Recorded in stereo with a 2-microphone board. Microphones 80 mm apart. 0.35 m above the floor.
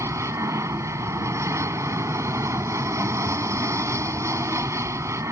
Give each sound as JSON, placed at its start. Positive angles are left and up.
{"t": 0.0, "sound": "an aircraft", "side_deg": -40}